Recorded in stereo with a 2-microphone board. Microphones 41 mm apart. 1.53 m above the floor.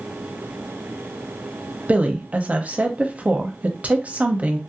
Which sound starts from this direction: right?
A woman speaking, at 1.9 s.